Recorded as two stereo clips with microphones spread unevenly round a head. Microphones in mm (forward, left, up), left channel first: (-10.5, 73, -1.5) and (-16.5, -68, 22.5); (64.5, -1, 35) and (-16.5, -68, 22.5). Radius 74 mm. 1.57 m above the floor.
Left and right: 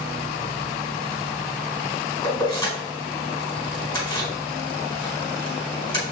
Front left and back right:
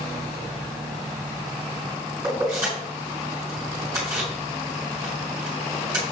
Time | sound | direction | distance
2.2 | keys jangling | 150° left | 4.5 m